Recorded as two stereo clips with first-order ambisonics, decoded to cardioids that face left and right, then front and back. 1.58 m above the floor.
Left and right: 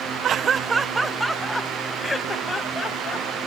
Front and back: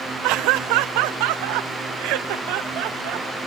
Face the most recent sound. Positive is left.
turn(degrees=155)